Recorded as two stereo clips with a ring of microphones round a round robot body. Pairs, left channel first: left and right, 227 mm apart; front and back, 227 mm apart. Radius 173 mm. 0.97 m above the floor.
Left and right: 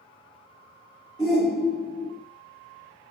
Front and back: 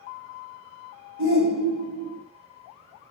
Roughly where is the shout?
Behind left.